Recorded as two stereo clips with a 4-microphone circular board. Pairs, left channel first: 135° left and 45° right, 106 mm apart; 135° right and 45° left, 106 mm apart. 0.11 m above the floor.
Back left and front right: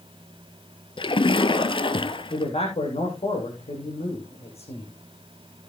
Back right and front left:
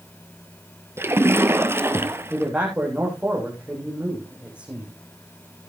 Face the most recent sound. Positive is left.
turn(degrees=125)